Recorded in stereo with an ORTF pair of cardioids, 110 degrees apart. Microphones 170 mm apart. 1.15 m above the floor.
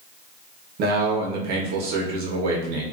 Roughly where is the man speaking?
Ahead right.